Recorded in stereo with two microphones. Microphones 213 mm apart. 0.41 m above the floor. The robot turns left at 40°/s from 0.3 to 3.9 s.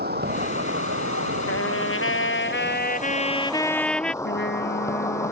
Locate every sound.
0.0 s an insect: 50° right; by 5.3 s 165° left
1.5 s a trumpet: 100° left; by 4.1 s 5° left
4.2 s a trumpet: 60° left (ahead or behind)